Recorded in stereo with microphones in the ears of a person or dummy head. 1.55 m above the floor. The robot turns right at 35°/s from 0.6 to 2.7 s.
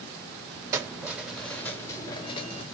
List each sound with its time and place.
0.7 s keys jangling: 25° right, 0.8 m; by 2.6 s 40° left, 0.8 m